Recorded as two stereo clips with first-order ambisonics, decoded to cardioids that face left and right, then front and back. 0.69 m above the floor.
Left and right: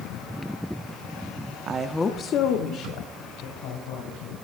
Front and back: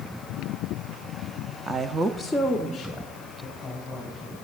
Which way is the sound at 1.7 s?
115° right.